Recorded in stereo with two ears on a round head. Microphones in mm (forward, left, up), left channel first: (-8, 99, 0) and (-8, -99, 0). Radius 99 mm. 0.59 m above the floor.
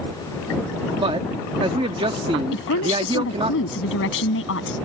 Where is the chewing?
I don't hear chewing.